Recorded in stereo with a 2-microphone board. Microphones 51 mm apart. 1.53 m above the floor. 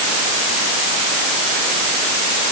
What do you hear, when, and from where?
Only background noise.